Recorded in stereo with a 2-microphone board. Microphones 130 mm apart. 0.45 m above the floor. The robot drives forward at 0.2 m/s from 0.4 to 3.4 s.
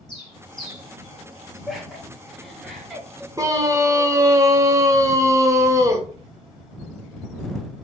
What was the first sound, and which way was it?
A bird, 40° left (ahead or behind).